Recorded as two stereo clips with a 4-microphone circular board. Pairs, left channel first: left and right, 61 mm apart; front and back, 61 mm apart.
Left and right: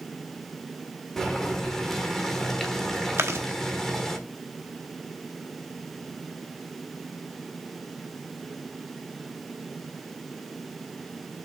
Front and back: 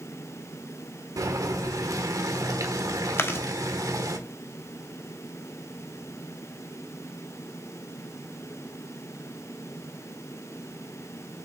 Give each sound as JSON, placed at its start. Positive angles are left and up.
{"t": 1.2, "sound": "boiling", "azimuth_deg": 175, "distance_m": 1.3}
{"t": 3.2, "sound": "chewing", "azimuth_deg": -45, "distance_m": 0.9}